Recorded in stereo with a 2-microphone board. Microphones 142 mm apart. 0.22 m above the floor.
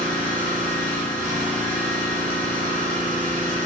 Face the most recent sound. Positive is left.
turn(degrees=-80)